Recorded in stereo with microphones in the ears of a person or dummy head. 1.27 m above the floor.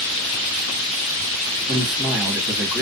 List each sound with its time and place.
1.7 s a man speaking: 5° right (ahead or behind), 1.4 m